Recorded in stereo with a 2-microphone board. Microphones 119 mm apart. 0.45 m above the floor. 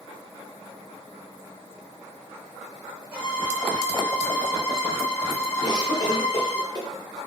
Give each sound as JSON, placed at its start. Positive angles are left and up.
{"t": 3.1, "sound": "a violin", "side_deg": 10, "distance_m": 1.8}
{"t": 5.6, "sound": "a cough", "side_deg": 35, "distance_m": 1.2}